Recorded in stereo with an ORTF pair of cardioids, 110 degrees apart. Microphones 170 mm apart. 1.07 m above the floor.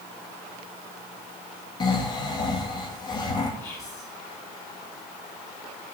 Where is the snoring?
25° left, 1.3 m.